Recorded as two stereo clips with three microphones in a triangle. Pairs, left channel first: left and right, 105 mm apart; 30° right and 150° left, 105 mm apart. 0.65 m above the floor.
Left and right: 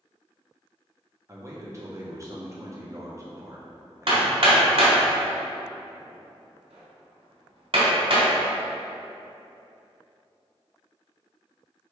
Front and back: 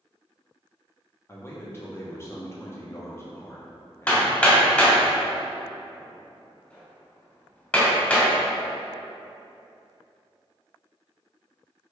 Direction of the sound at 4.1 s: 110° right.